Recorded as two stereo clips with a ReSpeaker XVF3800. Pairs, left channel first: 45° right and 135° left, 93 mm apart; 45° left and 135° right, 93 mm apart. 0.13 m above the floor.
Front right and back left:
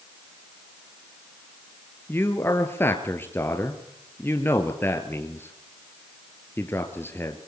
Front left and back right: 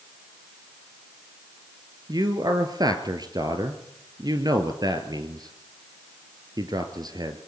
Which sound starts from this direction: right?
A man speaking, at 2.1 s.